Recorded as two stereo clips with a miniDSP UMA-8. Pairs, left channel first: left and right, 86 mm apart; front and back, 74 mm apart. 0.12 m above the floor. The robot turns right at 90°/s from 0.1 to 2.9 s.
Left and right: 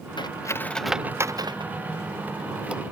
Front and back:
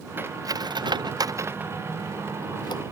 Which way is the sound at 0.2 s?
120° left.